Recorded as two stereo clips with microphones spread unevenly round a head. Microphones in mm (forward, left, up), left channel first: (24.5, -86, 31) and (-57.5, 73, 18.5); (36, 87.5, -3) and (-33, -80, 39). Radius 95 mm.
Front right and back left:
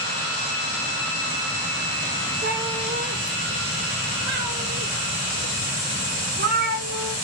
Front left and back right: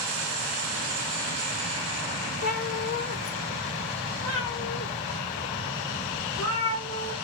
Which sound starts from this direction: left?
A cat meowing, at 2.4 s.